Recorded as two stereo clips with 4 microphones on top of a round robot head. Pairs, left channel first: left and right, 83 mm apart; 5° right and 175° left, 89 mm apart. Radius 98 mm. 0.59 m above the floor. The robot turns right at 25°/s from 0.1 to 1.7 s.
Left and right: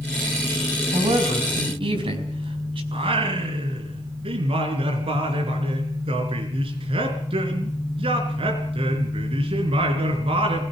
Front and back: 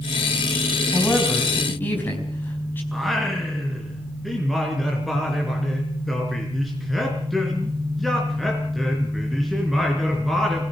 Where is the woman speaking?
95° right, 4.5 m; by 2.8 s 75° right, 4.5 m.